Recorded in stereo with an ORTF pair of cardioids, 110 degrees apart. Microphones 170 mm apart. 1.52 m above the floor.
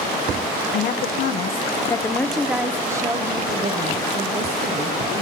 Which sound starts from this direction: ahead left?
A woman speaking, at 0.7 s.